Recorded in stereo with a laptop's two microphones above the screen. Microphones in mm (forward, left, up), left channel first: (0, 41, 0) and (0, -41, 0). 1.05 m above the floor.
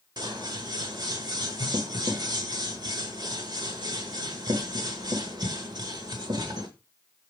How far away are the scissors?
About 1.2 m.